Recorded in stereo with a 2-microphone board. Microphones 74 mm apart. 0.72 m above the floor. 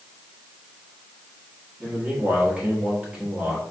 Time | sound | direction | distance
1.8 | a man speaking | 10° right (ahead or behind) | 1.4 m